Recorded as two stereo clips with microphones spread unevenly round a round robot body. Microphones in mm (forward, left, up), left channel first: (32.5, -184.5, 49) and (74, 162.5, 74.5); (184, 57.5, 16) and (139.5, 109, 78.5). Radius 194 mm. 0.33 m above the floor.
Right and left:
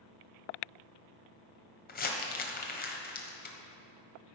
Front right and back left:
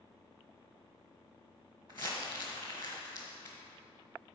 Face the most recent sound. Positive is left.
turn(degrees=-160)